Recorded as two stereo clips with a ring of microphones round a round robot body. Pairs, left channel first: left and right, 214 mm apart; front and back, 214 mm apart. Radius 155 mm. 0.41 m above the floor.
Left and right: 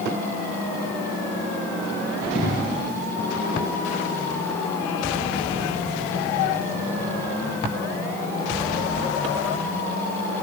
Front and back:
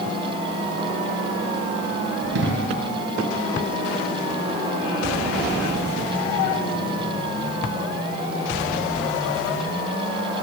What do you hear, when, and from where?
2.4 s an explosion: 155° left, 3 m